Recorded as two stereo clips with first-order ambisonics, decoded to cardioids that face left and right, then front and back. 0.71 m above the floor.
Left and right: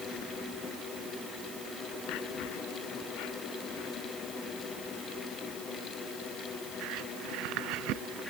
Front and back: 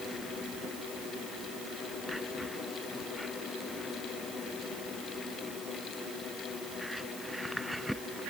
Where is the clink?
No clink in this recording.